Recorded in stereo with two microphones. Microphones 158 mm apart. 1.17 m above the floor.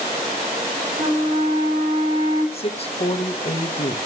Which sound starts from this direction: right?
A flute, at 1.0 s.